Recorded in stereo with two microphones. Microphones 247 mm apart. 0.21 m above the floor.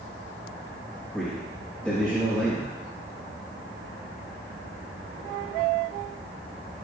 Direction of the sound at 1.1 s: 5° left (ahead or behind).